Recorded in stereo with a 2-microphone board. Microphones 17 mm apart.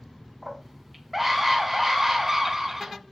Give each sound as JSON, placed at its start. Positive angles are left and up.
{"t": 0.4, "sound": "a scream", "side_deg": -5, "distance_m": 4.0}